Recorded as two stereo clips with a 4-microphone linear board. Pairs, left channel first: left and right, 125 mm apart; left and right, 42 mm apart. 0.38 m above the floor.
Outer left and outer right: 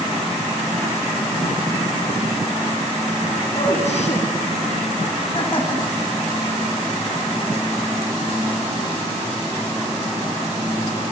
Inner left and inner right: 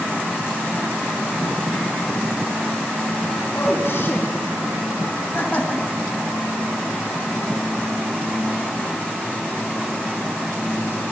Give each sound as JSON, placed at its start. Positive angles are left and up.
{"t": 3.5, "sound": "a man speaking", "side_deg": 65, "distance_m": 3.0}